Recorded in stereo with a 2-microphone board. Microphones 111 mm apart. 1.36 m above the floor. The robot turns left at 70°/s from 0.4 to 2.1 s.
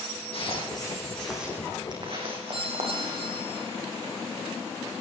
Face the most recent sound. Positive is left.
turn(degrees=-60)  # may be behind; listen again after turning